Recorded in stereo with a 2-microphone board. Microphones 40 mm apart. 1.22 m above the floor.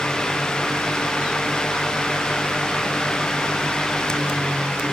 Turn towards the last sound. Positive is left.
No sound to turn to.